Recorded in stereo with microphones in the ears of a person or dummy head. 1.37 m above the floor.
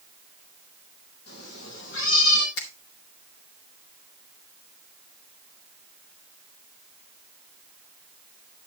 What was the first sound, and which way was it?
A cat meowing, 80° left.